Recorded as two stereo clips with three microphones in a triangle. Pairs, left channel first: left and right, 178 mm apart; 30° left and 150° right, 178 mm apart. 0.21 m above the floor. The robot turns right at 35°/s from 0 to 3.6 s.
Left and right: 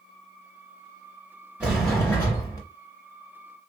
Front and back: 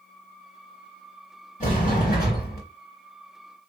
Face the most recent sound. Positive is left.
turn(degrees=60)